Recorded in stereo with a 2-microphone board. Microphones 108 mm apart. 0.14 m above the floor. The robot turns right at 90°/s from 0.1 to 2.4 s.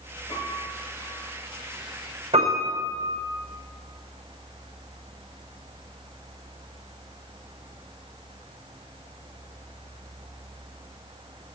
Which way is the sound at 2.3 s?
80° right.